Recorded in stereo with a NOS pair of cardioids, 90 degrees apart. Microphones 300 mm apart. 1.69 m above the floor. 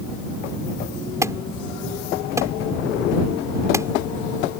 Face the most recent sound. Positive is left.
turn(degrees=-10)